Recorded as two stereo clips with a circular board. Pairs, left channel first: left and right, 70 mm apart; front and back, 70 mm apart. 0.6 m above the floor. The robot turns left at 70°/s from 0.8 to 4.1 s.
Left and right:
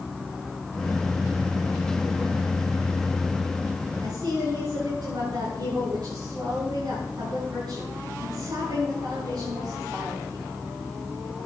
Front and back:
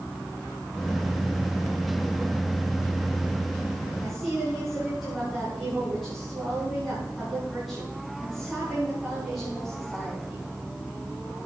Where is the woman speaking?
85° right, 6.5 m; by 10.4 s 90° right, 6.5 m.